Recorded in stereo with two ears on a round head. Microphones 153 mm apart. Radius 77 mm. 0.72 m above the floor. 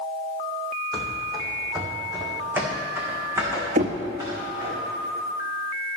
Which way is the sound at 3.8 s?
45° right (ahead or behind).